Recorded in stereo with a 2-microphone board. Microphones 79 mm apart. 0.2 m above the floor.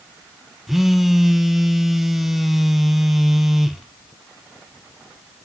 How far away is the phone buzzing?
About 0.6 m.